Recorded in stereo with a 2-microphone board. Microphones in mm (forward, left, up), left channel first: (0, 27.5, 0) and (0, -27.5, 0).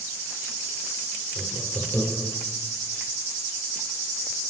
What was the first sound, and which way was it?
Laughter, 20° right (ahead or behind).